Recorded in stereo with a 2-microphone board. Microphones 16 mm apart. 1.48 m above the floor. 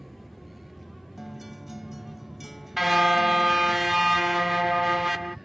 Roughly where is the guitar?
Centre.